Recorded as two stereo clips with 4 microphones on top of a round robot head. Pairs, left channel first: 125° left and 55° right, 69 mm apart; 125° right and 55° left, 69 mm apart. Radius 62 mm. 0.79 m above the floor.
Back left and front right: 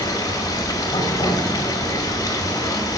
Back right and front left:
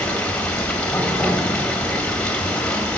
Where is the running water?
160° left, 1.6 m.